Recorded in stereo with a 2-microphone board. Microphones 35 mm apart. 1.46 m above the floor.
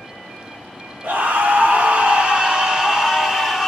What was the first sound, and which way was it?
A scream, 60° right (ahead or behind).